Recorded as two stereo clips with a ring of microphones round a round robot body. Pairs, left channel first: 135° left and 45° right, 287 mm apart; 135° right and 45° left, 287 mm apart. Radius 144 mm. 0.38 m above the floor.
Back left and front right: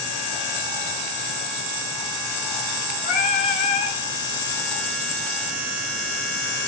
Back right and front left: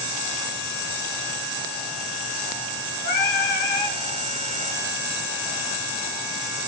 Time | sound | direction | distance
3.0 | singing | 160° right | 3 m